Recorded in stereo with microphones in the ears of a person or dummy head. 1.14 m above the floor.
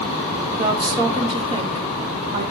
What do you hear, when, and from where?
0.5 s a woman speaking: 30° right (ahead or behind), 1.9 m